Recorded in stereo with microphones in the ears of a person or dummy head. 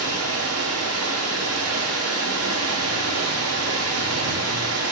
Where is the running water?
85° right, 0.7 m.